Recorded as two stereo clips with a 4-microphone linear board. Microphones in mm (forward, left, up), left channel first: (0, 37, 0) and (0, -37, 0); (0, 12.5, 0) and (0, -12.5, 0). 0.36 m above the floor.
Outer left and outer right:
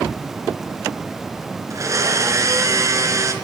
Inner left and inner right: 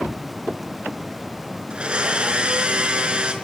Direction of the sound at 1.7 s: 50° right (ahead or behind).